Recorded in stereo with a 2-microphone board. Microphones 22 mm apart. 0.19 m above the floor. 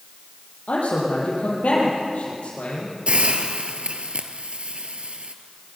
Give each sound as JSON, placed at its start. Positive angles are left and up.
{"t": 0.7, "sound": "a man speaking", "side_deg": 75, "distance_m": 6.5}
{"t": 3.1, "sound": "a hiss", "side_deg": -60, "distance_m": 1.4}